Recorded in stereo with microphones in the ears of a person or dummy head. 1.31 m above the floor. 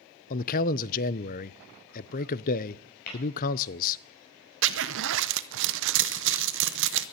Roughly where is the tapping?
Left.